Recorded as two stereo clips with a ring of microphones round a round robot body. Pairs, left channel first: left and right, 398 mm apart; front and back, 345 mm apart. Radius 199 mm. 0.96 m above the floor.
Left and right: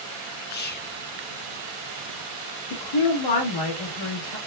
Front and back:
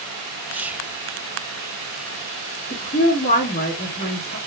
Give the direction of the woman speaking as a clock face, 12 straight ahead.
10 o'clock.